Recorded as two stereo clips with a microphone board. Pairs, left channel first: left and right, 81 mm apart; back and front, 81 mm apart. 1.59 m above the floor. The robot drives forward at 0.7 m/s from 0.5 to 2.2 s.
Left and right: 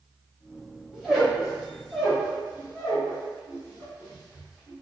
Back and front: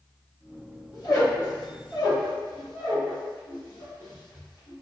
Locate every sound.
0.9 s a squeak: 175° right, 1.5 m